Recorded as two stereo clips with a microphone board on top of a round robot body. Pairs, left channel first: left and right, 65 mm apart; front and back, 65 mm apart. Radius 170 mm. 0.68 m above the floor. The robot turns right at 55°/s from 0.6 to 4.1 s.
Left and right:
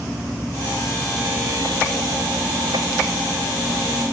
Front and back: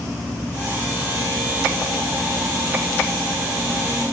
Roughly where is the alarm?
I don't hear an alarm.